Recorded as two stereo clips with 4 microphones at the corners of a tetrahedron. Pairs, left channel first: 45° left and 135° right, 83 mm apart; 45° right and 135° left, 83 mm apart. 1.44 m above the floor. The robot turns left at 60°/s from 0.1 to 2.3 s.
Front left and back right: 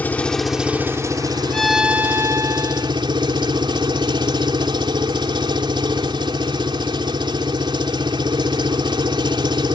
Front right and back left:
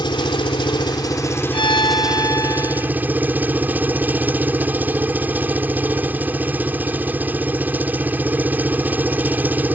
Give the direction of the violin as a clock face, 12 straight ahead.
1 o'clock.